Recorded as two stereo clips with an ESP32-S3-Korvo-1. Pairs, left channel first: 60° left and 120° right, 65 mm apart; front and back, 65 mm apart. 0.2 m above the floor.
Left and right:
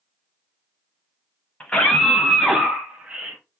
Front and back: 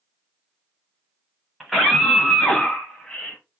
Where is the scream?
90° left, 1.0 m; by 3.4 s 60° right, 1.2 m.